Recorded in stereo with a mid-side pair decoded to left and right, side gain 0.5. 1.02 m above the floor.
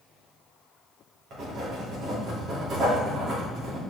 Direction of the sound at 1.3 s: 65° right.